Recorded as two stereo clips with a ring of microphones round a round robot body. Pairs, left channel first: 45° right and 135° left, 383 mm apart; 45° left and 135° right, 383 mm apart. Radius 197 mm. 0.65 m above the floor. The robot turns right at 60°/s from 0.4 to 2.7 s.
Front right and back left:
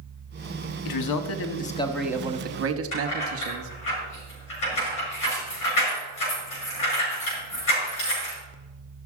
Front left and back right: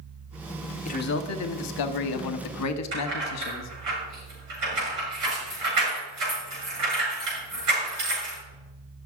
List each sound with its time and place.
0.8 s a man speaking: 25° right, 1.1 m; by 3.7 s 85° left, 1.1 m
2.9 s keys jangling: 90° right, 6.5 m